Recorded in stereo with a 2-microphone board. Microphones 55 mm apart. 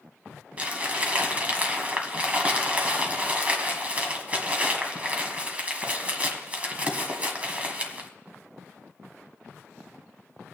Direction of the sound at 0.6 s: 25° right (ahead or behind).